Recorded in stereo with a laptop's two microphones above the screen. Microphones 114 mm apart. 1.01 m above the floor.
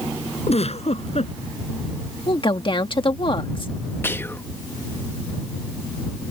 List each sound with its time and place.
0.5 s a giggle: 65° left (ahead or behind)
2.3 s a woman speaking: 45° left (ahead or behind)
4.0 s whispering: 20° left (ahead or behind)